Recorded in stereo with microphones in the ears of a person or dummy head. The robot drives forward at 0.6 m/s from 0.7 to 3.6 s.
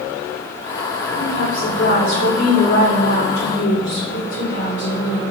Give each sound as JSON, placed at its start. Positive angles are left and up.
{"t": 1.2, "sound": "a woman speaking", "side_deg": 80, "distance_m": 4.0}